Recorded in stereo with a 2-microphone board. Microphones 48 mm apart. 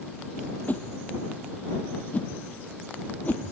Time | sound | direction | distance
0.7 | a whoosh | 35° left (ahead or behind) | ?